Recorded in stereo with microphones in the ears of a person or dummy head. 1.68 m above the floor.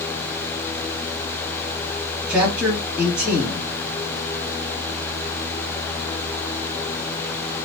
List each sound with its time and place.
2.3 s a man speaking: 5° right (ahead or behind), 2 m